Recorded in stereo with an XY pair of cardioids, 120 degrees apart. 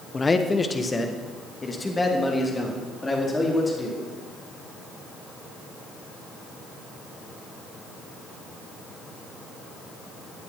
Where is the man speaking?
20° left, 1.4 m; by 4.0 s 15° left, 5 m.